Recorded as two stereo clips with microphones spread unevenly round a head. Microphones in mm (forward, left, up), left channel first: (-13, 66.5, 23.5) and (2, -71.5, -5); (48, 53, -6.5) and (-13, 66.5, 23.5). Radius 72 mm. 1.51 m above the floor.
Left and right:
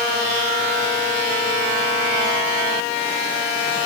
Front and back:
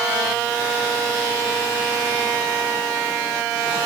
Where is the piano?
No piano in this recording.